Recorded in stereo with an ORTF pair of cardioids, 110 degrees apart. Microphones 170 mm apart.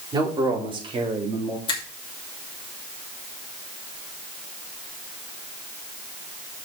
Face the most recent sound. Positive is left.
turn(degrees=30)